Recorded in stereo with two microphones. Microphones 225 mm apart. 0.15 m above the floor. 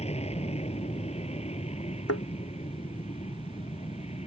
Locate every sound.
0.0 s an aircraft: 25° left (ahead or behind)
2.1 s a thud: 80° left